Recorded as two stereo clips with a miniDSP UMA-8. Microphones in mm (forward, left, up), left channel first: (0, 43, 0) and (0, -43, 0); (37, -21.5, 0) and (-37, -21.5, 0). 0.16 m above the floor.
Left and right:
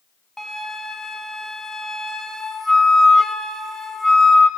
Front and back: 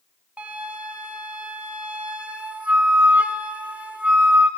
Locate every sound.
0.4 s a flute: 165° left, 1.2 m